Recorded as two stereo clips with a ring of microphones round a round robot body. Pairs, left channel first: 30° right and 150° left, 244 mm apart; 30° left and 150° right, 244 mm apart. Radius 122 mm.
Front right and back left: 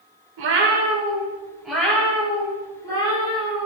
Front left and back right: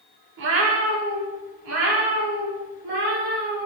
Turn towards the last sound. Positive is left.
turn(degrees=-100)